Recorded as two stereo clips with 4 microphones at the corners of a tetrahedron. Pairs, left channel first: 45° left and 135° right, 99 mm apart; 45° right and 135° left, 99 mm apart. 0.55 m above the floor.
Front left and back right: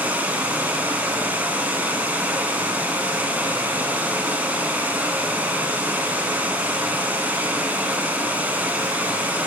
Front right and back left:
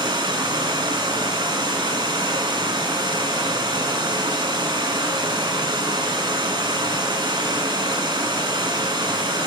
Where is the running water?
155° left, 0.7 m.